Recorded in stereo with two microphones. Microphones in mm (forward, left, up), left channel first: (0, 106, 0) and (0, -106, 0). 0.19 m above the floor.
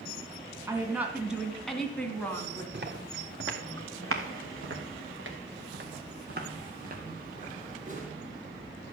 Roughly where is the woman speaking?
Centre.